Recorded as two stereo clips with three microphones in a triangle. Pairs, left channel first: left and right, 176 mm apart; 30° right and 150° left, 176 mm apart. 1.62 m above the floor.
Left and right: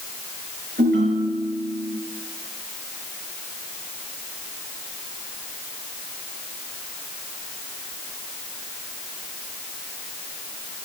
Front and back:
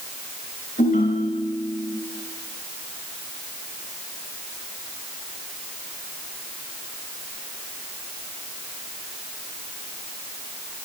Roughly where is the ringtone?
Right.